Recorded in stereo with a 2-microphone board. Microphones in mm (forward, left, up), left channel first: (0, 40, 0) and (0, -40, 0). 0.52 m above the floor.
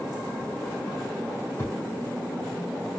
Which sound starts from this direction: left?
A thud, at 1.6 s.